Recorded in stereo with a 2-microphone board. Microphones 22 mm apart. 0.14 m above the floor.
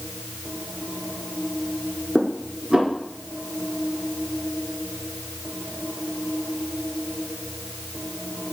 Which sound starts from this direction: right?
Dishes clattering, at 2.1 s.